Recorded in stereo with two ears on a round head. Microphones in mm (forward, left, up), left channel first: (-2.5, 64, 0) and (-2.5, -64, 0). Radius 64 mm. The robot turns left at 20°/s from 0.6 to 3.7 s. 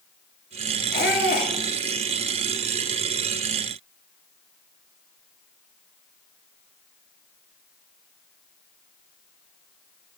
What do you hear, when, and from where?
0.9 s a squeak: 75° left (ahead or behind), 2 m; by 1.5 s 65° left (ahead or behind), 2 m